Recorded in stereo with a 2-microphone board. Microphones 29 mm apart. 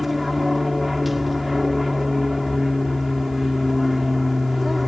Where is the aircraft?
10° right (ahead or behind).